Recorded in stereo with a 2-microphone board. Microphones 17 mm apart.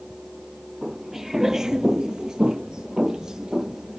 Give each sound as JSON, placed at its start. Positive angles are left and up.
{"t": 0.8, "sound": "footsteps", "side_deg": -15, "distance_m": 0.8}